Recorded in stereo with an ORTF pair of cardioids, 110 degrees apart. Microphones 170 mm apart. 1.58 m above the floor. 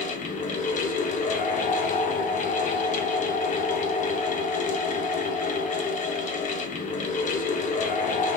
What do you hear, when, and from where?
0.0 s a fan: 45° left, 0.8 m